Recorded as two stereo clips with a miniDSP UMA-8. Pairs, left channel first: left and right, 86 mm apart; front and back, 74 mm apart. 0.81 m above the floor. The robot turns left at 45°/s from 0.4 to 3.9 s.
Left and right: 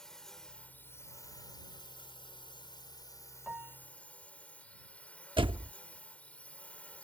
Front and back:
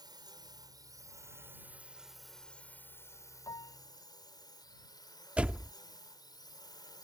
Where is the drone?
175° left; by 7.0 s 15° left.